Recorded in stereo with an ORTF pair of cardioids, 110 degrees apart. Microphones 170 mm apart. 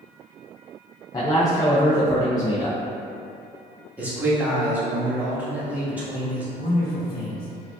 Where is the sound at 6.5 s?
65° left, 1.5 m.